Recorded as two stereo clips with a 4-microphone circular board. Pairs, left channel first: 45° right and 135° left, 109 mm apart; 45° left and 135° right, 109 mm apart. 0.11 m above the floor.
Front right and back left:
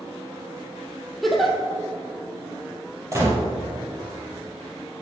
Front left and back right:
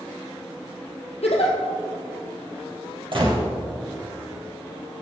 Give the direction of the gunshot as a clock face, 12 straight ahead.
6 o'clock.